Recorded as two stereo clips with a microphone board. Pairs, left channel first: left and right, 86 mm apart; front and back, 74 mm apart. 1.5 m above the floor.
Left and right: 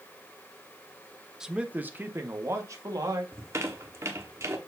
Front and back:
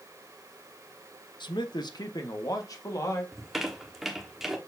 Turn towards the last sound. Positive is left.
turn(degrees=-95)